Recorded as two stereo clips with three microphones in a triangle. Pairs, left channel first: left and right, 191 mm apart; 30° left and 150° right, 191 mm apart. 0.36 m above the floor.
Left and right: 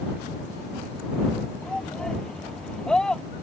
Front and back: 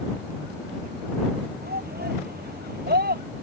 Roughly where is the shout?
Behind.